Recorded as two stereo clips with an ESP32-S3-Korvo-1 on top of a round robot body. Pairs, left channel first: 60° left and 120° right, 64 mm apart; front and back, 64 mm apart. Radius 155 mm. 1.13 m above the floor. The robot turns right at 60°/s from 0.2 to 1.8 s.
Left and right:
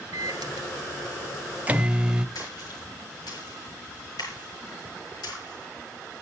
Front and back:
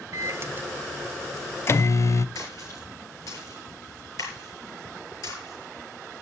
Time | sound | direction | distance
0.1 | a microwave | 140° right | 0.8 m
2.4 | a splash | 40° left | 8 m